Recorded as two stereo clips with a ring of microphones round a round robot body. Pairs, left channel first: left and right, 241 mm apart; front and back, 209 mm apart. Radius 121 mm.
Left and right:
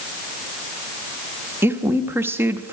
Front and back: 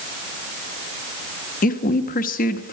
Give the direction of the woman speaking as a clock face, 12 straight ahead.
12 o'clock.